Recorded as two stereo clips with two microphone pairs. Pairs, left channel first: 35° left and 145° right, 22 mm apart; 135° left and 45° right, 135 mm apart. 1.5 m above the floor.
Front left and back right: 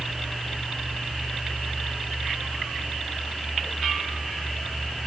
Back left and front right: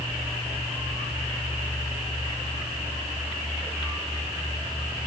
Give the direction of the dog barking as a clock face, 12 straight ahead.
No dog barking in this recording.